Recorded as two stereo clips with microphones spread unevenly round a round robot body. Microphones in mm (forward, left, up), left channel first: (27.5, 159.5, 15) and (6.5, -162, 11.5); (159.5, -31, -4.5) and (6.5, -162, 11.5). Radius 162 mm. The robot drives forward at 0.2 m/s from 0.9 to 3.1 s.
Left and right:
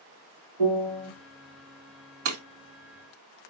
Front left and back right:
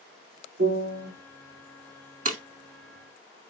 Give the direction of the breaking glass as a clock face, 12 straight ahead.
3 o'clock.